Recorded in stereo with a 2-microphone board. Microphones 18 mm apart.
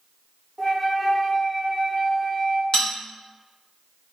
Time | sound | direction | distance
0.6 | a flute | centre (ahead or behind) | 0.8 m
2.7 | a bell | 50° left (ahead or behind) | 1.0 m